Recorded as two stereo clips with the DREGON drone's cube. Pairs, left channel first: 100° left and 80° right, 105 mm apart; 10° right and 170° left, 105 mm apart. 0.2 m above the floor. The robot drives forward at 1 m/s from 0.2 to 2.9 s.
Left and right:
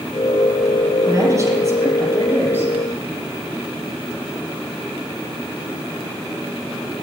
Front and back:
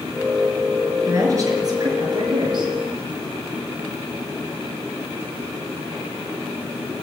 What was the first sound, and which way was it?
A woman speaking, 135° right.